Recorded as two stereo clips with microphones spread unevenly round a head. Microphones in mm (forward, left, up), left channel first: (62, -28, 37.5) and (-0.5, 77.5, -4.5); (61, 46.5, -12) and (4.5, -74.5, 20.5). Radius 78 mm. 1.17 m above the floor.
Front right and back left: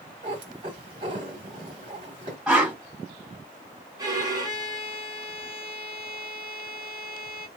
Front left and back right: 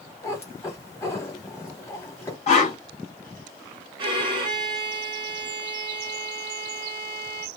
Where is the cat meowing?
140° left, 1.0 m.